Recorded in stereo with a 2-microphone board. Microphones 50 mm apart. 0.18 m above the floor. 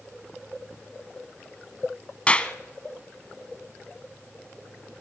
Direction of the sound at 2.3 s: 25° left (ahead or behind).